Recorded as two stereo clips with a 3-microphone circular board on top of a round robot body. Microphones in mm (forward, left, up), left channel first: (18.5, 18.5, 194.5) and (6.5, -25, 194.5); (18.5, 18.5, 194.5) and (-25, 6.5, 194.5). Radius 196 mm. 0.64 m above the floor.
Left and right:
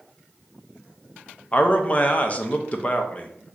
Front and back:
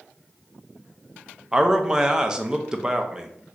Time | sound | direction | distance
1.5 | a man speaking | 125° left | 0.7 m